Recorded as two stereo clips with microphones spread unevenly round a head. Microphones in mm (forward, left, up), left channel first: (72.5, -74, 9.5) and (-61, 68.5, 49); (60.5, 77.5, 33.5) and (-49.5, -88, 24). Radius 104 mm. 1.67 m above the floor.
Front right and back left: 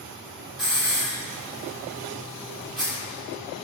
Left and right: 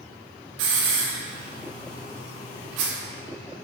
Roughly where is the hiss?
Behind right.